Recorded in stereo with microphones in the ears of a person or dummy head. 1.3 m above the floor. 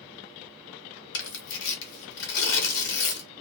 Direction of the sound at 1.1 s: 65° left (ahead or behind).